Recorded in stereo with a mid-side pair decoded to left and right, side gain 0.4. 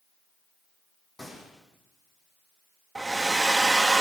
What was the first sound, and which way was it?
A gunshot, 30° left.